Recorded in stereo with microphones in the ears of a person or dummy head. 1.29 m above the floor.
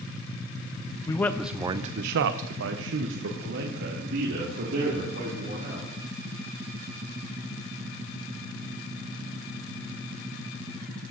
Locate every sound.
1.1 s a man speaking: 15° left (ahead or behind), 0.7 m; by 5.9 s 60° right (ahead or behind), 3 m